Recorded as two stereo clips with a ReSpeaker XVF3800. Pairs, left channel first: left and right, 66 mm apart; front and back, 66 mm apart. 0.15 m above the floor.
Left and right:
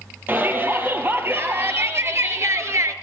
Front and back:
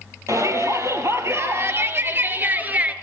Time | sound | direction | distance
0.3 | a shout | 145° right | 4.5 m